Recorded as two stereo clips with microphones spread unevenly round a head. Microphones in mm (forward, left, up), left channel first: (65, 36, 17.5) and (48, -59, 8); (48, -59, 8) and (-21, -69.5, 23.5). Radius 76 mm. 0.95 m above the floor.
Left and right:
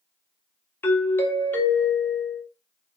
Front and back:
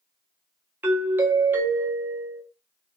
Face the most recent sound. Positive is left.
turn(degrees=130)